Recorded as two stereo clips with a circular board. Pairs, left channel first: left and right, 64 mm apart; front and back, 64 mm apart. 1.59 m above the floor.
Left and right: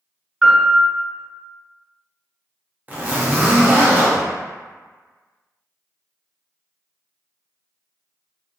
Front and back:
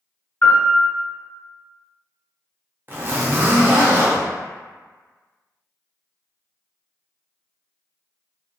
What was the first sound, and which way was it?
A piano, 40° right.